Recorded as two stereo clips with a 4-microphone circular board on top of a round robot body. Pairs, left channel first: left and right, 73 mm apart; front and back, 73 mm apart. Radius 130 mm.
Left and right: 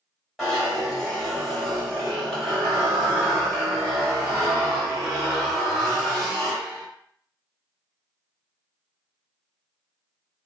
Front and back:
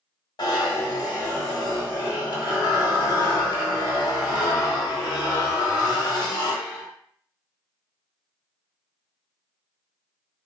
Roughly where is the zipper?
Ahead.